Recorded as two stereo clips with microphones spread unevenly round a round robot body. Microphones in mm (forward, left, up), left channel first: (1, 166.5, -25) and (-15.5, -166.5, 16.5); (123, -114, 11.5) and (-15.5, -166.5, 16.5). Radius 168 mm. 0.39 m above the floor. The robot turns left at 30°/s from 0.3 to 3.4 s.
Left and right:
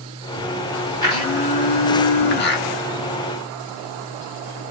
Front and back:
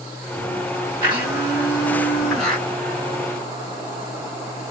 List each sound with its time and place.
1.0 s a blender: 150° left, 1.2 m; by 2.7 s 100° left, 1.2 m